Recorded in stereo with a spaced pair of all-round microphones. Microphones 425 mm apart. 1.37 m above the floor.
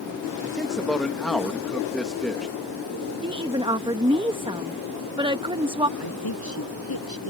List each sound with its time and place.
0.4 s a man speaking: centre (ahead or behind)
3.2 s a woman speaking: 10° right (ahead or behind)
6.0 s a woman speaking: 55° left (ahead or behind)